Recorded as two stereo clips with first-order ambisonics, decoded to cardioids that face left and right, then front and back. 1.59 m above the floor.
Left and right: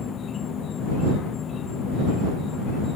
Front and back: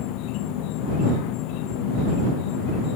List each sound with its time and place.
0.0 s an insect: 25° left